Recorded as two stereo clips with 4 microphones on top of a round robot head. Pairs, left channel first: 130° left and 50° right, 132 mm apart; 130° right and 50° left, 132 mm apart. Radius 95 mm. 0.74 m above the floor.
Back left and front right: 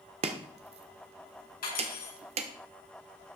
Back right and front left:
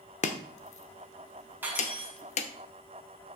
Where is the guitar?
I don't hear a guitar.